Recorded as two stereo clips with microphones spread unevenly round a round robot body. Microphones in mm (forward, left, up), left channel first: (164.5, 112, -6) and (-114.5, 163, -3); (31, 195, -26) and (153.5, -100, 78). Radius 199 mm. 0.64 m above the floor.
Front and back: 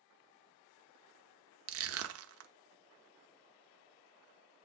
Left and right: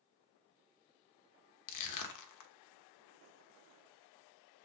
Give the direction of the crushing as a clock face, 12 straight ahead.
8 o'clock.